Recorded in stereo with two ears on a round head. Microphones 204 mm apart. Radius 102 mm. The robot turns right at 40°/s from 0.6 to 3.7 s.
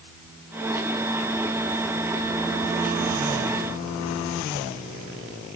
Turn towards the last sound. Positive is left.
No sound to turn to.